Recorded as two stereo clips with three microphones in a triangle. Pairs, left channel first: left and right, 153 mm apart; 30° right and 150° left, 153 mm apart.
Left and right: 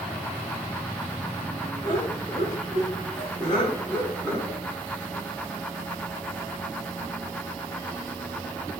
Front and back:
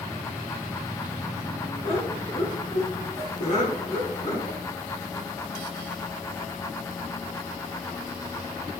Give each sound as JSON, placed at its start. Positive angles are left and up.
{"t": 1.8, "sound": "laughter", "azimuth_deg": 20, "distance_m": 3.5}